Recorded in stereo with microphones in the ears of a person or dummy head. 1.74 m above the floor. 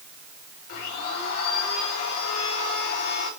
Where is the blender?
50° left (ahead or behind), 6 m.